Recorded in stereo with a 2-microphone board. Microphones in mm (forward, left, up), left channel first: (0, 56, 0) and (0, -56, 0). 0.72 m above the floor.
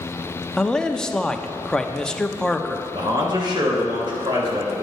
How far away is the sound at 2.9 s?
About 2.5 m.